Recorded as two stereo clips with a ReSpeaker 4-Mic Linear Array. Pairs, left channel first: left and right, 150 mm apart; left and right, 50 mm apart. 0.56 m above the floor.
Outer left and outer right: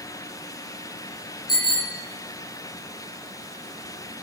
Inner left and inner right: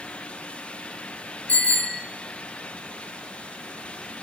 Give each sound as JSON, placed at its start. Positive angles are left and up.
{"t": 1.5, "sound": "a bicycle bell", "side_deg": 30, "distance_m": 6.5}